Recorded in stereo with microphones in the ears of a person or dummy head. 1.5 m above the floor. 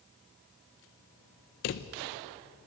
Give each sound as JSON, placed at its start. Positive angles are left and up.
{"t": 1.6, "sound": "a drawer", "side_deg": 40, "distance_m": 0.7}